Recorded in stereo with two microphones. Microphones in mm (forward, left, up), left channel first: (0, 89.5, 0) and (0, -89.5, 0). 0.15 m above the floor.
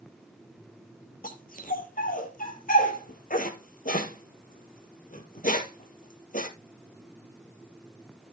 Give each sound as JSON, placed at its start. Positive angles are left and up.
{"t": 1.2, "sound": "a dog barking", "side_deg": 50, "distance_m": 1.6}